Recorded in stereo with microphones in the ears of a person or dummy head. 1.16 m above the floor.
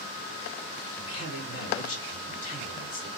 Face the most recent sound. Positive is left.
turn(degrees=45)  # may be behind; listen again after turning